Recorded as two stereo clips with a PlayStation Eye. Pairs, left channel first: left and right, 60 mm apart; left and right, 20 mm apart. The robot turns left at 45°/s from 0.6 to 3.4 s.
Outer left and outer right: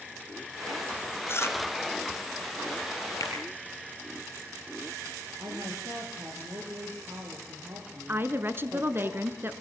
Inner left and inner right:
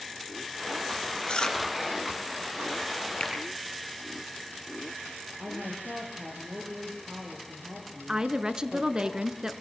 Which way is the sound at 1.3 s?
40° left (ahead or behind).